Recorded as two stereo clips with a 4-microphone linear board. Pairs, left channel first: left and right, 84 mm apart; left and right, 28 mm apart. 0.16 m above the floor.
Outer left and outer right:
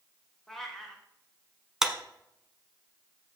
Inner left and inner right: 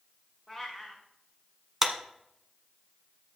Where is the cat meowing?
5° left (ahead or behind), 2 m.